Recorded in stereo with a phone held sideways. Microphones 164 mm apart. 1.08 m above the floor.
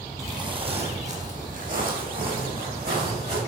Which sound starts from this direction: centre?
Footsteps, at 0.2 s.